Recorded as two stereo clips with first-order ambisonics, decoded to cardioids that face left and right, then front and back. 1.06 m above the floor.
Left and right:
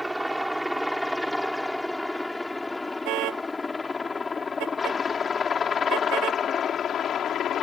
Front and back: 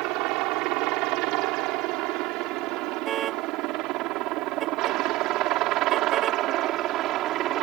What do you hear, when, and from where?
0.0 s a helicopter: straight behind; by 7.6 s 140° left
3.0 s a car horn: 125° right